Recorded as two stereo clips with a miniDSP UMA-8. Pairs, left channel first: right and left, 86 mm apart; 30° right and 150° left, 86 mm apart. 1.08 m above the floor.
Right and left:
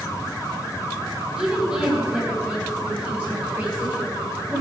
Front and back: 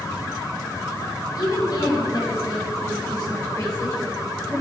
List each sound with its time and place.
1.4 s a woman speaking: 10° left, 4 m; by 4.6 s 20° left, 9 m